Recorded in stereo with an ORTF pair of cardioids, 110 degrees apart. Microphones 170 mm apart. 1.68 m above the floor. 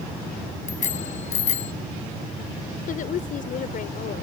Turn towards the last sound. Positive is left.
turn(degrees=55)